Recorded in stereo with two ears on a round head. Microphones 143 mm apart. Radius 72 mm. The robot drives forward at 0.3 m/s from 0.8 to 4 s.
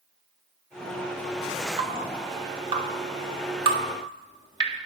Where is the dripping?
40° right (ahead or behind), 1.6 m; by 4.8 s 30° right (ahead or behind), 1.9 m.